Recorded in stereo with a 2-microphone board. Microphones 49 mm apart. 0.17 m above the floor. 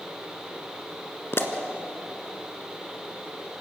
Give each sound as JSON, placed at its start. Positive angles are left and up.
{"t": 1.3, "sound": "a pop", "side_deg": 55, "distance_m": 1.6}